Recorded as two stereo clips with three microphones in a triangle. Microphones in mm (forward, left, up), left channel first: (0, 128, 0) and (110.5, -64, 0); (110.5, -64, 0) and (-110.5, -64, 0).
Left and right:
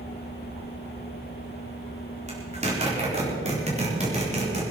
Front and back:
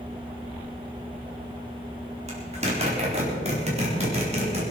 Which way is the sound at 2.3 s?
120° right.